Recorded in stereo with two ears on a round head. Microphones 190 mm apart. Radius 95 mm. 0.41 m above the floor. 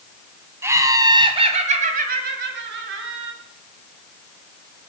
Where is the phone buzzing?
No phone buzzing in this recording.